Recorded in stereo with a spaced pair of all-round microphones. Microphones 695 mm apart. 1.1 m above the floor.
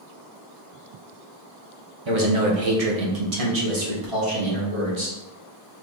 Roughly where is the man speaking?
Right.